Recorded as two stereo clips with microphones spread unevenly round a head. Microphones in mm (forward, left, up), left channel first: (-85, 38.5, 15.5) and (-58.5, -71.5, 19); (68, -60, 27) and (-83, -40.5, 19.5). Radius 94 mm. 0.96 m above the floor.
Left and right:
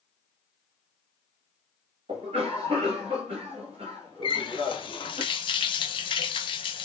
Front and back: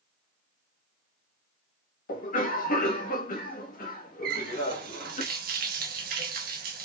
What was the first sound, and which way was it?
A cough, 30° right.